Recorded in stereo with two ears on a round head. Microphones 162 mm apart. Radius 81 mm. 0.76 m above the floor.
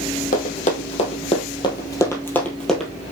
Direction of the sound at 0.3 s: 45° left (ahead or behind).